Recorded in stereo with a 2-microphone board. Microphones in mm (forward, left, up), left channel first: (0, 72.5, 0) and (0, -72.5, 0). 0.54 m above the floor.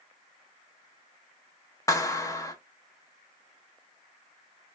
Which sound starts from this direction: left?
A clap, at 1.9 s.